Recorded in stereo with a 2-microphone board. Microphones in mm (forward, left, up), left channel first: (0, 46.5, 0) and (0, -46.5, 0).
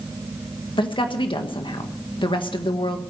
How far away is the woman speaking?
About 1.4 m.